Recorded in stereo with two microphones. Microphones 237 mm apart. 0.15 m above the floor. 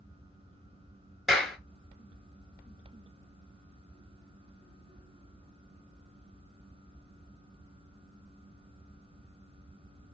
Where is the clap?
Centre (ahead or behind), 2.0 m.